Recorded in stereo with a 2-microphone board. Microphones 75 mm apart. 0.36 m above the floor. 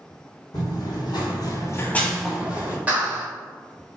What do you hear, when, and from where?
0.5 s running footsteps: 65° left (ahead or behind), 1.2 m; by 2.8 s 25° right (ahead or behind), 1.0 m
2.9 s a clap: 20° right (ahead or behind), 0.9 m